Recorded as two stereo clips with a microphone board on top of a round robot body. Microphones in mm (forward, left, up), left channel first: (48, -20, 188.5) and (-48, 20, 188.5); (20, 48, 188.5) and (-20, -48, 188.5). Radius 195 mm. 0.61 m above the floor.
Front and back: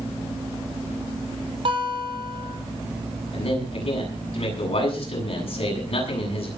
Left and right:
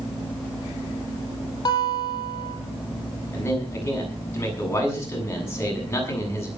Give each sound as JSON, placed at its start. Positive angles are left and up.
{"t": 1.6, "sound": "a guitar", "azimuth_deg": 120, "distance_m": 4.0}
{"t": 3.3, "sound": "a man speaking", "azimuth_deg": 0, "distance_m": 8.0}